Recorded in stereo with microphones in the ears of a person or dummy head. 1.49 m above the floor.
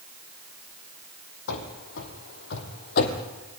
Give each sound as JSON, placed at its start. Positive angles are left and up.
{"t": 1.5, "sound": "running footsteps", "side_deg": 70, "distance_m": 4.0}